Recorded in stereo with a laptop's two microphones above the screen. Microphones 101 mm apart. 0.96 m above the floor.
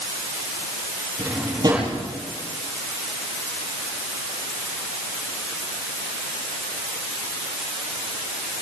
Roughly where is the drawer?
Right.